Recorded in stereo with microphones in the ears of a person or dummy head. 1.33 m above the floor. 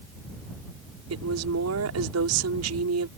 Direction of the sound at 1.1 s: 85° right.